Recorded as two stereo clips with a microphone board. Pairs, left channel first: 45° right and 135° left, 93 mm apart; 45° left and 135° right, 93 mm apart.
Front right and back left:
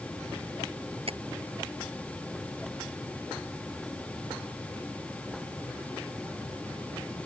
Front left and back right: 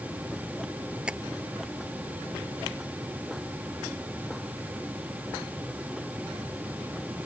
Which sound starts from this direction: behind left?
Tapping, at 1.1 s.